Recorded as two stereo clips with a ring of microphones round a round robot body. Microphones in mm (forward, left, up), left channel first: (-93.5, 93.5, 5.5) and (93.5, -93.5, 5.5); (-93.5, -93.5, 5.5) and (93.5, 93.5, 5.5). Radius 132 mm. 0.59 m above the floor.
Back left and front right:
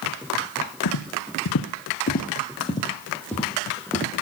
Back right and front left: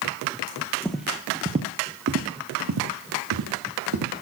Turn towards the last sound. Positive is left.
turn(degrees=40)